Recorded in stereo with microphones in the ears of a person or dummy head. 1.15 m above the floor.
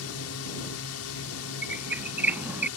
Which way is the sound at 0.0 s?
70° left (ahead or behind).